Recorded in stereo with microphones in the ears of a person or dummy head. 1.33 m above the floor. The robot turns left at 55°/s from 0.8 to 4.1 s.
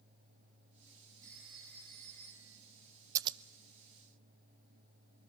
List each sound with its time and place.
1.2 s a phone ringing: 160° right, 7.5 m; by 2.6 s 125° left, 7.5 m
3.1 s scissors: 15° right (ahead or behind), 0.6 m; by 3.4 s 25° right (ahead or behind), 0.6 m